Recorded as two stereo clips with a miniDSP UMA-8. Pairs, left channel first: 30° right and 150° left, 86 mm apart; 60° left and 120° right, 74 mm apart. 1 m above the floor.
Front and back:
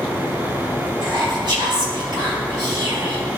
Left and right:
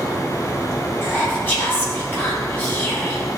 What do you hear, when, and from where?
1.0 s whispering: 125° left, 2.5 m